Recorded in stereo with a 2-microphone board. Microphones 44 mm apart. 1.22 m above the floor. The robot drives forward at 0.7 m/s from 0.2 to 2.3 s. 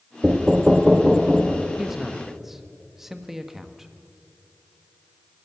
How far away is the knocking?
About 0.6 m.